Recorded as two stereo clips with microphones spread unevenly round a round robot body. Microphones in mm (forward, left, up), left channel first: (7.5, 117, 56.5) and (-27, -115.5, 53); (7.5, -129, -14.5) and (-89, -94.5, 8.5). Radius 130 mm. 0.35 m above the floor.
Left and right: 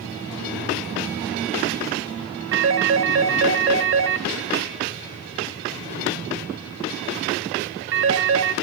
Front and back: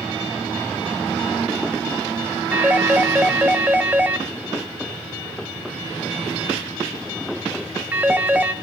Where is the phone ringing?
120° right, 1.3 m.